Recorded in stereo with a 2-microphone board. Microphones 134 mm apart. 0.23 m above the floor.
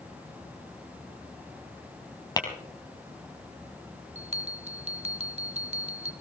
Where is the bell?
50° right (ahead or behind), 1.8 m.